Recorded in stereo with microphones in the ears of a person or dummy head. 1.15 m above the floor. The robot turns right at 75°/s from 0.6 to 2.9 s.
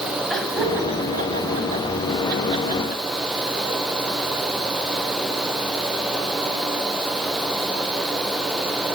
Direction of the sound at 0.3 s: 5° right (ahead or behind).